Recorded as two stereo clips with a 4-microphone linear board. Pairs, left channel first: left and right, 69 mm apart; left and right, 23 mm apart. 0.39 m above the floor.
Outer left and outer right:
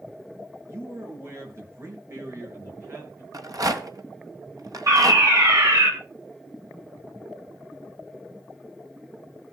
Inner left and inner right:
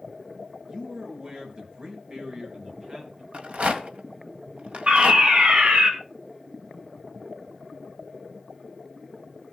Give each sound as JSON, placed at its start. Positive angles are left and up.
{"t": 0.7, "sound": "a man speaking", "side_deg": -40, "distance_m": 5.5}
{"t": 3.3, "sound": "a rattle", "side_deg": -60, "distance_m": 1.8}
{"t": 4.9, "sound": "a fire alarm", "side_deg": -70, "distance_m": 5.5}